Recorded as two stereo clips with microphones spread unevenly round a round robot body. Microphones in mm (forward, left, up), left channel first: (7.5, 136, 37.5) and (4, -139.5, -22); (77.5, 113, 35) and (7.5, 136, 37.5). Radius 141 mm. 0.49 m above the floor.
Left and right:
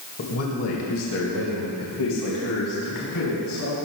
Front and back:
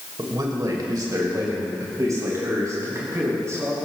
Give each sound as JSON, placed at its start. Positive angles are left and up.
{"t": 0.2, "sound": "a man speaking", "azimuth_deg": 135, "distance_m": 2.5}